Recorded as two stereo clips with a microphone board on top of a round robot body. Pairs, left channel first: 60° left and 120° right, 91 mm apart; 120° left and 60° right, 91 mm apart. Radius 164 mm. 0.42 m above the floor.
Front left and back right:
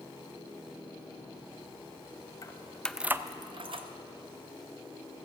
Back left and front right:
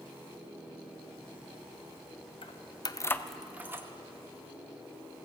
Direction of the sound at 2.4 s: 110° left.